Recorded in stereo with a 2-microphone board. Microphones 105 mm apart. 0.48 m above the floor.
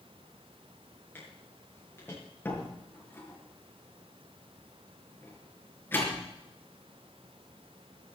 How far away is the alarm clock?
No alarm clock in this recording.